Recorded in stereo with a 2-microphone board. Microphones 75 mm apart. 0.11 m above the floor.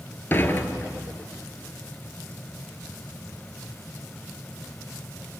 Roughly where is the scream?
I don't hear a scream.